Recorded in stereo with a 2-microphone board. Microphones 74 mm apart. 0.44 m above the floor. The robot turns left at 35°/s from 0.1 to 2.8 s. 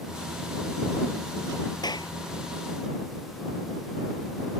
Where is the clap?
65° left (ahead or behind); by 2.1 s 75° left (ahead or behind).